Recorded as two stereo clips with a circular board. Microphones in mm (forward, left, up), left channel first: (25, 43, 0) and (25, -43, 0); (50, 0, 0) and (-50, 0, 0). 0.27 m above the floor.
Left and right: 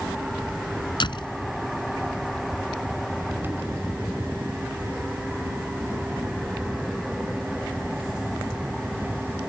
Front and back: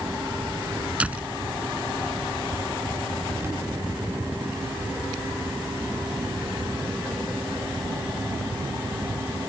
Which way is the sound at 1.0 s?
105° left.